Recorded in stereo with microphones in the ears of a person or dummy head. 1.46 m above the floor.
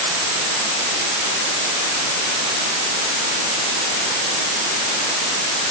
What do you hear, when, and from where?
Only background noise.